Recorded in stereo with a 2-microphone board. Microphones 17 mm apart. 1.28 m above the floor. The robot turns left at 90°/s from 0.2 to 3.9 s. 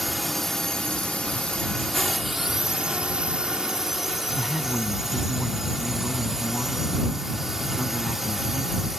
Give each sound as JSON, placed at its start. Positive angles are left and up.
{"t": 0.0, "sound": "a drone", "azimuth_deg": 175}
{"t": 4.3, "sound": "a man speaking", "side_deg": -5}